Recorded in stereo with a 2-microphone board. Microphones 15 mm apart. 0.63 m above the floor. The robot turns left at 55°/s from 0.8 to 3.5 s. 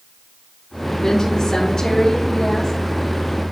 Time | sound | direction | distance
1.0 | a woman speaking | 150° left | 1.6 m